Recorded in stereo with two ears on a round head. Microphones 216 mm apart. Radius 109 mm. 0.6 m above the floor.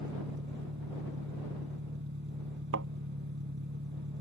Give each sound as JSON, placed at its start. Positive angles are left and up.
{"t": 0.0, "sound": "an engine running", "side_deg": -50}
{"t": 2.7, "sound": "a thud", "side_deg": -55}